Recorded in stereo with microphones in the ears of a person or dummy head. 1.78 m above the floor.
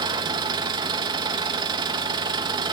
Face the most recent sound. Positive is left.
turn(degrees=-30)  # may be behind; listen again after turning